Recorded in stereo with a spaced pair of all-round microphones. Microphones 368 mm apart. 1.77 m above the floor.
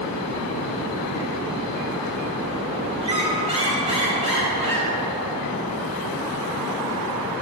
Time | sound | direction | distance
3.0 | a squeak | 15° right (ahead or behind) | 2.5 m